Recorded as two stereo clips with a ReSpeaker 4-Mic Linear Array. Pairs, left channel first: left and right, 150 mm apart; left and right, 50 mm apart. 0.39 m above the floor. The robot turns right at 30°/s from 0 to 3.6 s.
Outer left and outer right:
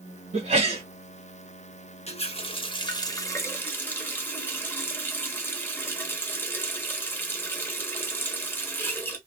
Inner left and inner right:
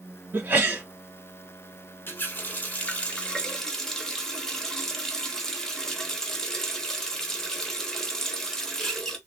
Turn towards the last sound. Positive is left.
turn(degrees=160)